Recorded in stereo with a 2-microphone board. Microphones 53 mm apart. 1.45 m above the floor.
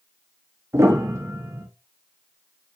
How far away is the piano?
About 0.8 m.